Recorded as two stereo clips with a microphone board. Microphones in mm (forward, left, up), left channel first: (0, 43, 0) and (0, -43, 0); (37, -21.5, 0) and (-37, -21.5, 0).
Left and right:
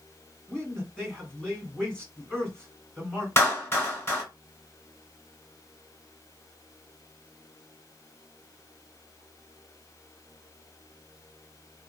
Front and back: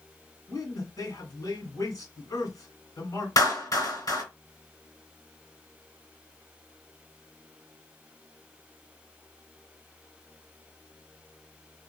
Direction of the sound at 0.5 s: 15° left.